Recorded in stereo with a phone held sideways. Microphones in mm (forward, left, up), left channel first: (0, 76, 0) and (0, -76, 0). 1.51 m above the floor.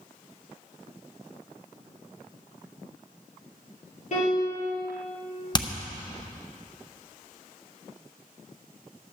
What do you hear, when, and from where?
4.1 s a piano: 50° left (ahead or behind), 3.5 m
5.5 s hammering: 30° left (ahead or behind), 0.7 m